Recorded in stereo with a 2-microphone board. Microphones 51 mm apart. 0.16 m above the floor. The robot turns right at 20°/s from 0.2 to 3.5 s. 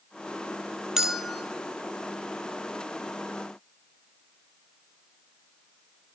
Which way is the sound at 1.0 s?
5° right (ahead or behind).